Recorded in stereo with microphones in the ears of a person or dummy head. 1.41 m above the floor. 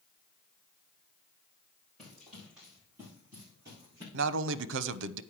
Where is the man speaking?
75° right (ahead or behind), 0.7 m.